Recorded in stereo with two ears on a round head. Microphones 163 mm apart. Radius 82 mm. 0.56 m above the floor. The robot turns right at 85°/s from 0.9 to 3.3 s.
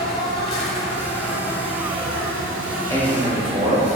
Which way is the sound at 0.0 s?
145° left.